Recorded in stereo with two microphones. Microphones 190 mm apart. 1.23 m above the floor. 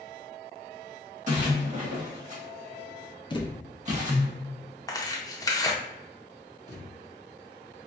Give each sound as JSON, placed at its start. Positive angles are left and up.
{"t": 1.3, "sound": "a splash", "side_deg": -40, "distance_m": 1.3}
{"t": 3.3, "sound": "a thud", "side_deg": 25, "distance_m": 0.5}
{"t": 4.9, "sound": "tearing paper", "side_deg": 20, "distance_m": 0.6}
{"t": 6.7, "sound": "a thud", "side_deg": -20, "distance_m": 1.2}